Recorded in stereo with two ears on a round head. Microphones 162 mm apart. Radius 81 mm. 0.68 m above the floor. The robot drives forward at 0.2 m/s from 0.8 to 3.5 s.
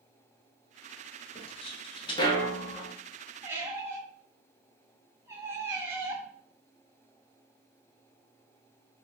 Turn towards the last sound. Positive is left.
turn(degrees=-15)  # may be behind; listen again after turning